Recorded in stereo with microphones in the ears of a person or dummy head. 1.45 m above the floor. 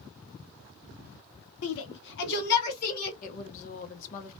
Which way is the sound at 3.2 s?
40° left (ahead or behind).